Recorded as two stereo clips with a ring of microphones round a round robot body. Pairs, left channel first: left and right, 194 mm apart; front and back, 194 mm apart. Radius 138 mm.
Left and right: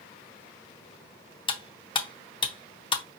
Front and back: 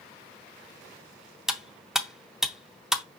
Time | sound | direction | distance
1.5 | cutlery clinking | 95° left | 0.6 m